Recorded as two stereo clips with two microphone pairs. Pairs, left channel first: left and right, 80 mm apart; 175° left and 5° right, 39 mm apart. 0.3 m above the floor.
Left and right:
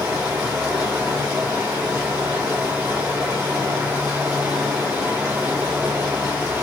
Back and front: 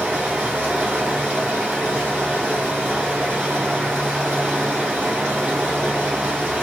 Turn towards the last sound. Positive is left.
turn(degrees=-35)